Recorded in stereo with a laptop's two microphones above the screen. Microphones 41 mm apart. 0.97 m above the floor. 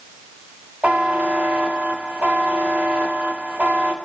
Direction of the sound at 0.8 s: 35° right (ahead or behind).